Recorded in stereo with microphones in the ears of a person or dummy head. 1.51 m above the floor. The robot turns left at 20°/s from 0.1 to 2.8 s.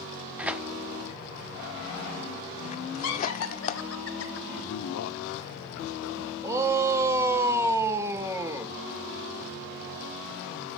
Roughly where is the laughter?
Left.